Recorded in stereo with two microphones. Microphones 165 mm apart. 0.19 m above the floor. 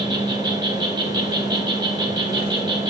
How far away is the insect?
About 1.3 m.